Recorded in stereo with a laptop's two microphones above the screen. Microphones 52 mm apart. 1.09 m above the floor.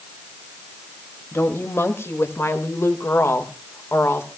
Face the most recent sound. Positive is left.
turn(degrees=55)  # may be behind; listen again after turning